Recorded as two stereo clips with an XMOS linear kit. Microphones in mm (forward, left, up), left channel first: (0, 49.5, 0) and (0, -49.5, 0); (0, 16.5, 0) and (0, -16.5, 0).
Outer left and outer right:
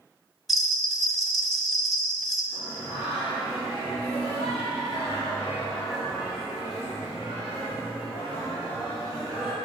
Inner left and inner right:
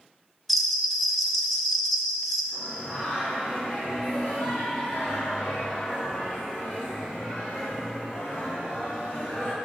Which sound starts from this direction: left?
Singing, at 2.5 s.